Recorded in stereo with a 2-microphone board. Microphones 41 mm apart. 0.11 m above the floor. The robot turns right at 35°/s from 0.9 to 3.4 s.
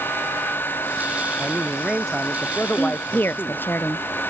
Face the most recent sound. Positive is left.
turn(degrees=55)  # may be behind; listen again after turning